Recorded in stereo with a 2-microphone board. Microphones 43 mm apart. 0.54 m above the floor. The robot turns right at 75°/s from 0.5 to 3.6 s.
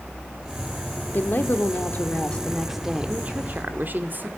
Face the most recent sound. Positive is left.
turn(degrees=-115)